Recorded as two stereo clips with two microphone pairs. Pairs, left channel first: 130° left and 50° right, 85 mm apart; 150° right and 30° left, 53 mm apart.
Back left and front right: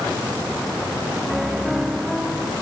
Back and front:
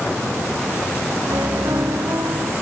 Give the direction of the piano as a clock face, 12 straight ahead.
11 o'clock.